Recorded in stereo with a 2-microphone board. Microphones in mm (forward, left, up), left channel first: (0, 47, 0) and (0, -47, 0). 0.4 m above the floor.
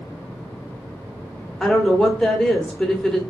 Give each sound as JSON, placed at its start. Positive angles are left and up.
{"t": 1.6, "sound": "a woman speaking", "side_deg": 5, "distance_m": 0.9}